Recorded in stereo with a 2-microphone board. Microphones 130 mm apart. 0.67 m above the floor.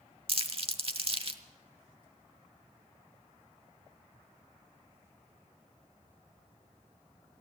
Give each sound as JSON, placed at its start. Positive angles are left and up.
{"t": 0.3, "sound": "crumpling", "side_deg": -45, "distance_m": 0.9}